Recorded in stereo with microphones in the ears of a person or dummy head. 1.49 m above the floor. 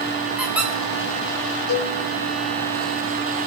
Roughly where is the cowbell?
Left.